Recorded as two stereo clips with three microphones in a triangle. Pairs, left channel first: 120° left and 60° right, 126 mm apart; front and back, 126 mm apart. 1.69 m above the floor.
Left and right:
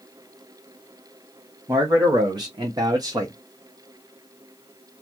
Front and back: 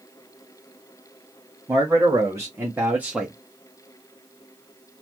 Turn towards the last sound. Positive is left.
turn(degrees=-95)